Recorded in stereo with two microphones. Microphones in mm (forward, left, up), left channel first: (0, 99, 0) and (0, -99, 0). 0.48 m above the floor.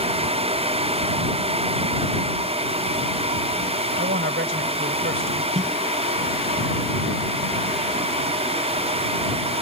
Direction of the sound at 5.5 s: 35° right (ahead or behind).